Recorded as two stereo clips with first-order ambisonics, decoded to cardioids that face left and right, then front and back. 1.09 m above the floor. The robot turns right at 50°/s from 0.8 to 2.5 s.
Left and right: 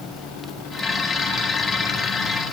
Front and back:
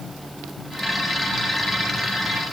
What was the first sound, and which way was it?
Only background noise.